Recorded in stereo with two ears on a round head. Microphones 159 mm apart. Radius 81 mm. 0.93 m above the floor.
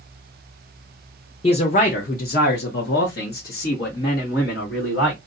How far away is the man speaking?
About 0.6 m.